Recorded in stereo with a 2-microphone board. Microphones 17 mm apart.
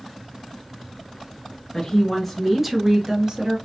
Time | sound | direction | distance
1.7 | a woman speaking | 20° left (ahead or behind) | 1.5 m